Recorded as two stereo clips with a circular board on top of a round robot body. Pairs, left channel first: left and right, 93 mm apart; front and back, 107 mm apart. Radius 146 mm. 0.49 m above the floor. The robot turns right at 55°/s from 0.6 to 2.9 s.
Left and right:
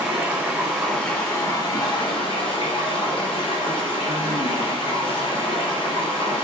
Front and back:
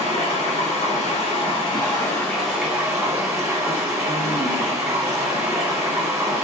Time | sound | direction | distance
0.0 | running water | 10° right | 1.6 m